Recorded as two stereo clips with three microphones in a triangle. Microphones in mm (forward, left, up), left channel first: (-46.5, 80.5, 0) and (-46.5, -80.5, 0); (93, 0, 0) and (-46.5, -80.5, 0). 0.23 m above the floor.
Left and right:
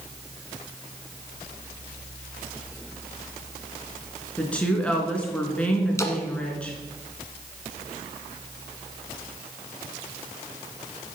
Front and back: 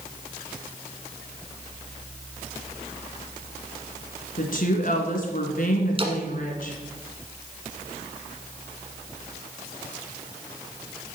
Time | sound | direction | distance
4.4 | a woman speaking | 10° left | 2.5 m
6.0 | a splash | 160° left | 1.3 m